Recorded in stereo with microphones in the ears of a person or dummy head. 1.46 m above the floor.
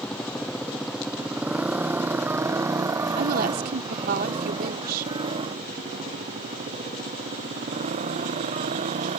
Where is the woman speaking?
55° right (ahead or behind).